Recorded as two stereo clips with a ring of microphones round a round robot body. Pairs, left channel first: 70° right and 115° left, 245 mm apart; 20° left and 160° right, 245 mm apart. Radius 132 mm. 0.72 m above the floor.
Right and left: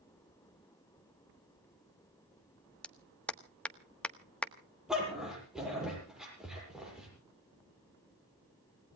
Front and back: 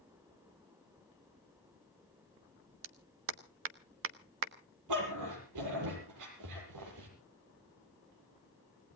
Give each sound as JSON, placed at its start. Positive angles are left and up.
{"t": 2.8, "sound": "a clap", "azimuth_deg": -155, "distance_m": 1.4}
{"t": 4.9, "sound": "a dog barking", "azimuth_deg": -160, "distance_m": 8.0}